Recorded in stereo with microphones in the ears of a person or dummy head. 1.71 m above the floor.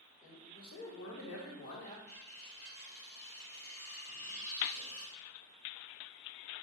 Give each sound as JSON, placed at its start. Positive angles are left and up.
{"t": 0.2, "sound": "a man speaking", "side_deg": 45, "distance_m": 1.8}
{"t": 2.1, "sound": "cutlery clinking", "side_deg": 35, "distance_m": 1.1}
{"t": 4.1, "sound": "a squeak", "side_deg": 15, "distance_m": 2.5}